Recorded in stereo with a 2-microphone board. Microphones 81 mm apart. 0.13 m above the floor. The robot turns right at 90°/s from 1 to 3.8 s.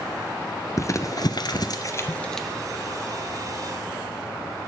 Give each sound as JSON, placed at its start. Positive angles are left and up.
{"t": 0.8, "sound": "crumpling", "side_deg": 40, "distance_m": 1.0}